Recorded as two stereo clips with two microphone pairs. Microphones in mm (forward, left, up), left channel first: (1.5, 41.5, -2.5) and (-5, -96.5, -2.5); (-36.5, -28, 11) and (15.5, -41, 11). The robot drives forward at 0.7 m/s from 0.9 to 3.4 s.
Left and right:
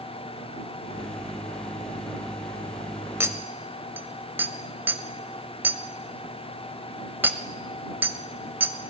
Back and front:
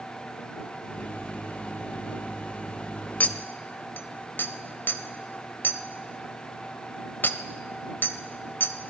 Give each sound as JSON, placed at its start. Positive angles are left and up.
{"t": 3.2, "sound": "a clink", "azimuth_deg": -150, "distance_m": 0.6}